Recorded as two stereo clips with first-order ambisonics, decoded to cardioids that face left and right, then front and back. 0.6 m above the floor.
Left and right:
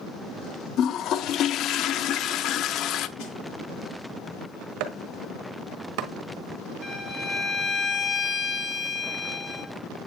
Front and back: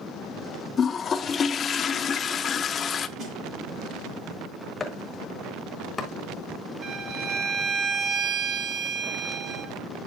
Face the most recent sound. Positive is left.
turn(degrees=150)